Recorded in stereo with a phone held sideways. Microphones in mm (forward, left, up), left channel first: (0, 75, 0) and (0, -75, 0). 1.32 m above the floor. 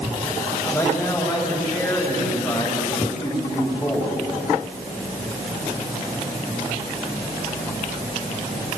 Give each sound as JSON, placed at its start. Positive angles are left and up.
{"t": 0.6, "sound": "a man speaking", "side_deg": 0, "distance_m": 7.5}